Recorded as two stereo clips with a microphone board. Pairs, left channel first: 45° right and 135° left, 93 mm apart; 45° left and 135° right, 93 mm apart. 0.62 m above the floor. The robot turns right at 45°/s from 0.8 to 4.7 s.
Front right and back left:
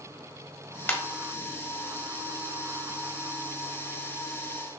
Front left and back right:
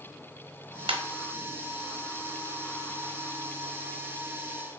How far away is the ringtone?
About 0.8 m.